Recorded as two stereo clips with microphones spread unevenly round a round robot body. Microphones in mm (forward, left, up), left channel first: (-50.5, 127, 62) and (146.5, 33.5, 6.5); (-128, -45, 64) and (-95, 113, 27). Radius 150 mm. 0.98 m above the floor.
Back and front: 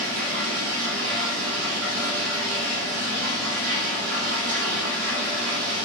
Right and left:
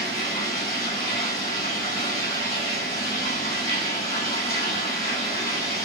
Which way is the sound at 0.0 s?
35° right.